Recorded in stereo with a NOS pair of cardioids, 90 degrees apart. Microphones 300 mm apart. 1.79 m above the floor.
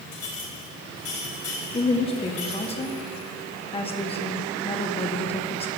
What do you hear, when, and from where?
0.1 s a clink: 55° left, 6.5 m
1.7 s a woman speaking: 20° left, 1.5 m